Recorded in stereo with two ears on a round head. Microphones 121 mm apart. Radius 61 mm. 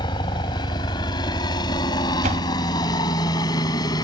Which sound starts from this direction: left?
A helicopter, at 0.0 s.